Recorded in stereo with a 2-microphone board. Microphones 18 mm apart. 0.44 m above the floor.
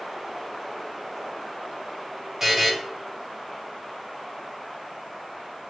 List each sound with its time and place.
2.4 s a buzzer: 20° right (ahead or behind), 1.1 m